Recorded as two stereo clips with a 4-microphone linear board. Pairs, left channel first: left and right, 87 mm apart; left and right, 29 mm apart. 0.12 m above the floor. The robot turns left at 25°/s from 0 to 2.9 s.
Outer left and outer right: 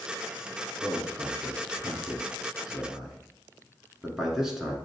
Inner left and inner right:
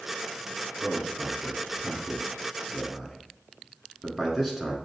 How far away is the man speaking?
About 1.1 m.